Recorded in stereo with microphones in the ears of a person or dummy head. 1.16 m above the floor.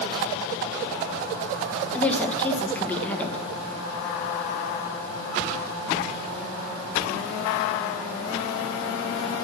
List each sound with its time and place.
1.9 s a woman speaking: 10° left (ahead or behind), 1.0 m